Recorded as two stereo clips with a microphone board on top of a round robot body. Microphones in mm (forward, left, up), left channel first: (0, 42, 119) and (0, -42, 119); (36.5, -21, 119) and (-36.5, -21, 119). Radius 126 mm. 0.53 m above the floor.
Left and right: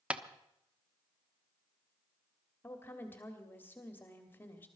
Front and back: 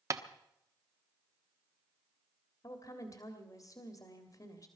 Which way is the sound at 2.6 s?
30° left.